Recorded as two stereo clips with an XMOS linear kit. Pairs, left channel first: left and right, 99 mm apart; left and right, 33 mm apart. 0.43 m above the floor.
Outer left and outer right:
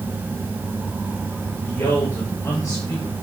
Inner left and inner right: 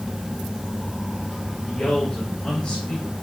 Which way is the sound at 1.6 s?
30° left (ahead or behind).